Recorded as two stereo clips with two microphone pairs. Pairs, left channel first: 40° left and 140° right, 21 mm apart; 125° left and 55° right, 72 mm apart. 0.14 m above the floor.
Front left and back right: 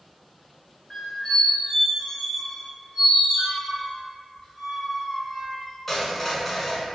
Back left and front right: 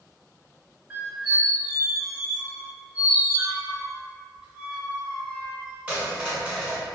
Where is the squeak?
25° right, 1.1 m.